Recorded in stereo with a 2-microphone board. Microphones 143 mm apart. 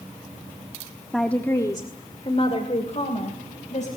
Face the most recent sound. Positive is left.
turn(degrees=55)  # may be behind; listen again after turning